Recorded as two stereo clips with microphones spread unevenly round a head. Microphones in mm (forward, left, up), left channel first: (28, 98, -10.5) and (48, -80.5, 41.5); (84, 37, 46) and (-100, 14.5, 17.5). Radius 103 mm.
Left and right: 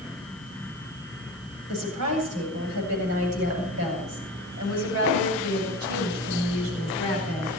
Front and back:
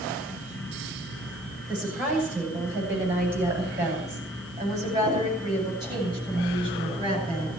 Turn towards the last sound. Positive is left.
turn(degrees=-110)